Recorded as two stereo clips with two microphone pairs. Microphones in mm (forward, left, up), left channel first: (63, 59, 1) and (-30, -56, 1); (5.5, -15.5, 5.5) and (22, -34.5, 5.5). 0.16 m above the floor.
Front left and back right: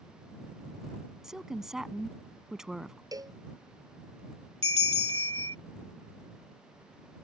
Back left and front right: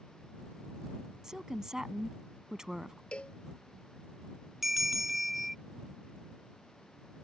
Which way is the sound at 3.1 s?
170° left.